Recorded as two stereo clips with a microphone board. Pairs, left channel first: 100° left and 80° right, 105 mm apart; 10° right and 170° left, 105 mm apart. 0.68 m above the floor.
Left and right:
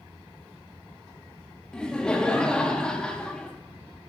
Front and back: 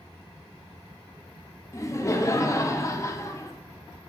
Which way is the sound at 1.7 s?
25° left.